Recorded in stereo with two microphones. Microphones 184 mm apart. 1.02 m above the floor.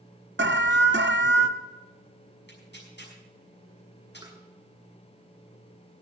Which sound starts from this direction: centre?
Tapping, at 4.2 s.